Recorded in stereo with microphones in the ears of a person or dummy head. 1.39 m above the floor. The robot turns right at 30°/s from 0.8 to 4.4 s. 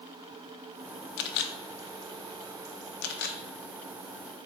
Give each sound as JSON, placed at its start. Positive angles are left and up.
{"t": 1.2, "sound": "a camera shutter", "side_deg": 60, "distance_m": 0.6}